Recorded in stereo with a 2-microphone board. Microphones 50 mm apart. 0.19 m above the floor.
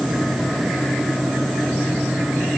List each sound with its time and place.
Only background noise.